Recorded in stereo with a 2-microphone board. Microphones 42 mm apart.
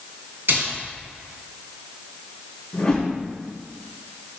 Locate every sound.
0.5 s a splash: 55° right (ahead or behind), 2.5 m
2.7 s a whoosh: 20° left (ahead or behind), 2.5 m